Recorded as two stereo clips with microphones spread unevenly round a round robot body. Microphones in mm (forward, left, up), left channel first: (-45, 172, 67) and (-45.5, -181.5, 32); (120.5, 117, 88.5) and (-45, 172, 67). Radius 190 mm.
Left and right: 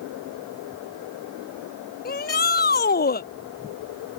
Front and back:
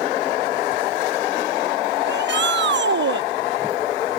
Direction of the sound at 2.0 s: 155° left.